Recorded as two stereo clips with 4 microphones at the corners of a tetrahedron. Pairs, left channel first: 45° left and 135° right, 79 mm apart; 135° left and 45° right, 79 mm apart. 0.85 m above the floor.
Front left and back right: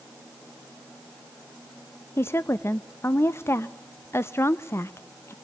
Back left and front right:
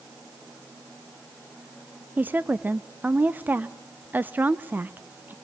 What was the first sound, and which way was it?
A woman speaking, 5° left.